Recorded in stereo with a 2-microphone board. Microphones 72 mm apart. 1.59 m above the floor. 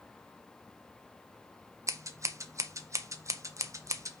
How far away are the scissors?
About 0.9 m.